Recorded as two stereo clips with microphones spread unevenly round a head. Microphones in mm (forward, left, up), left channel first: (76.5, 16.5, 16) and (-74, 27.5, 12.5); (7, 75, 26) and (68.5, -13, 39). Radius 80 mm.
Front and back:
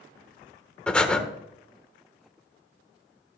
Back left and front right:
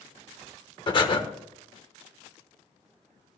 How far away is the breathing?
About 1.2 m.